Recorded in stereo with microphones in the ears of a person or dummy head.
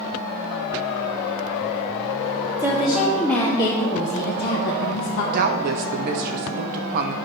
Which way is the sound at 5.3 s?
50° right (ahead or behind).